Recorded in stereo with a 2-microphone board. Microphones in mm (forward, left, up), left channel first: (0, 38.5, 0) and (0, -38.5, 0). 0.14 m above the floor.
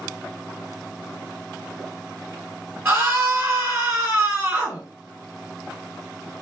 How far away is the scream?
About 1.6 m.